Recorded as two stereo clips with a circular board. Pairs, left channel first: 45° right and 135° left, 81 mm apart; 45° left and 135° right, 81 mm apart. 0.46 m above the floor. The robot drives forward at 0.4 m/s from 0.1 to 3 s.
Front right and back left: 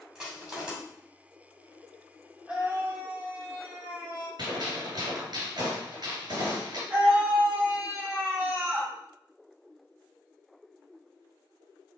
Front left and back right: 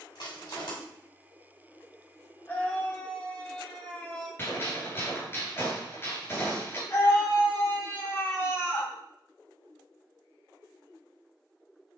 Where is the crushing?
55° left, 2 m; by 0.7 s 60° left, 2 m.